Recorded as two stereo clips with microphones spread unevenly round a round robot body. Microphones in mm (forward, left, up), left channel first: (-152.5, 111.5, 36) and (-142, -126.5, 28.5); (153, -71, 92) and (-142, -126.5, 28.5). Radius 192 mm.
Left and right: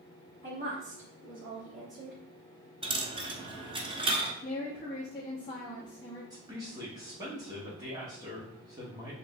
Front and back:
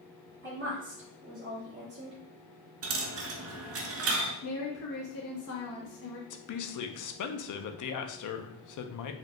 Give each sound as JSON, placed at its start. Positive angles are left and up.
{"t": 0.4, "sound": "a woman speaking", "azimuth_deg": -125, "distance_m": 2.0}
{"t": 2.8, "sound": "a dropped coin", "azimuth_deg": -140, "distance_m": 0.7}
{"t": 4.4, "sound": "a woman speaking", "azimuth_deg": 30, "distance_m": 0.8}
{"t": 6.3, "sound": "a woman speaking", "azimuth_deg": -15, "distance_m": 0.7}